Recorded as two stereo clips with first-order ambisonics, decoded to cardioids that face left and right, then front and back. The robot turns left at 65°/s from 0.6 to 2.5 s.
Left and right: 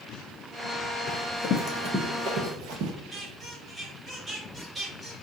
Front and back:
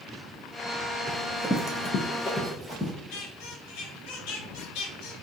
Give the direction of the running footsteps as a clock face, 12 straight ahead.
8 o'clock.